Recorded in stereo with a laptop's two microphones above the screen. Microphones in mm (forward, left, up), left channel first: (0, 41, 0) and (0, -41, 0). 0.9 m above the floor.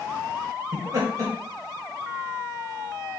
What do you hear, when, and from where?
0.7 s laughter: 45° right (ahead or behind), 0.8 m